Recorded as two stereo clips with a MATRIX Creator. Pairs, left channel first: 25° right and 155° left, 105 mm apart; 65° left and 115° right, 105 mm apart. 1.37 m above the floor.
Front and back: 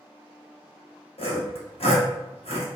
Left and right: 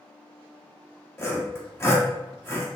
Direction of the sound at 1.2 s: Straight ahead.